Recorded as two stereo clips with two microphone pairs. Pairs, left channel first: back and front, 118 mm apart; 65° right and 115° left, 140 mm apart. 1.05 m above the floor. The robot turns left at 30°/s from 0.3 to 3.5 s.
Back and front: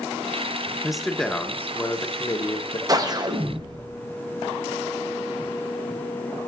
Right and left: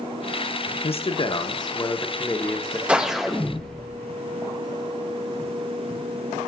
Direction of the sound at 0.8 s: 85° right.